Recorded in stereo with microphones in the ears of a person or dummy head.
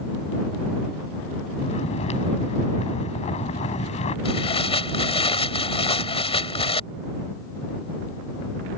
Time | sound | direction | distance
1.6 | snoring | 35° left (ahead or behind) | ?
4.2 | tearing paper | 30° left (ahead or behind) | ?